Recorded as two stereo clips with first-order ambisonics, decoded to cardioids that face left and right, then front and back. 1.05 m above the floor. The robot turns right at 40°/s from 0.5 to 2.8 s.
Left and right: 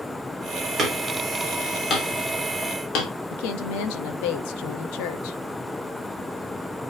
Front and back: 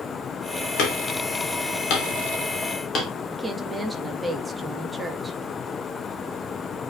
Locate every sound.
0.8 s hammering: 20° right, 3 m; by 3.1 s 60° left, 3 m
3.3 s a woman speaking: 95° left, 1.3 m